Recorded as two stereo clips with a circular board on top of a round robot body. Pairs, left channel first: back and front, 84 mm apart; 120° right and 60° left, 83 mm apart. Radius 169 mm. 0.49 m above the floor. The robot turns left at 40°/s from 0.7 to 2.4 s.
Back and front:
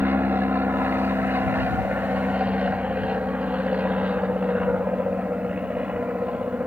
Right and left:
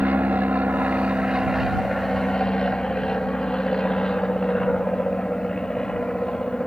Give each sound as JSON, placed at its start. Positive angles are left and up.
{"t": 0.0, "sound": "an aircraft", "azimuth_deg": 20}